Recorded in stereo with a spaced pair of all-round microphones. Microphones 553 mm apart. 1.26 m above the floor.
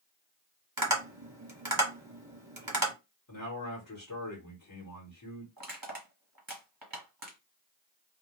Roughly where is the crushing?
Right.